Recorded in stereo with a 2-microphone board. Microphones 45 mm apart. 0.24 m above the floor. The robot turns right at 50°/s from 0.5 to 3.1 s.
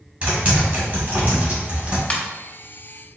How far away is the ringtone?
About 0.9 m.